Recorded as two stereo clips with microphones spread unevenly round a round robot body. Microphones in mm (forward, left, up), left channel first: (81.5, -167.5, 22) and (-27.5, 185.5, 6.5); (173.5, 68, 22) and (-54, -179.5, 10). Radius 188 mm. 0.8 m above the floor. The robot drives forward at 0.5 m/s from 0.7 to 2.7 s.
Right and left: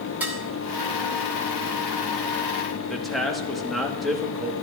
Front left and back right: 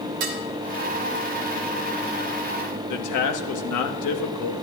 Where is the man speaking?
20° left, 1.4 m.